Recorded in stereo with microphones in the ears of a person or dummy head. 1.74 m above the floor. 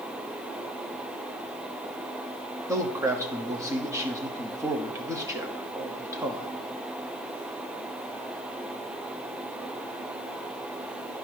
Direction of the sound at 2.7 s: 15° right (ahead or behind).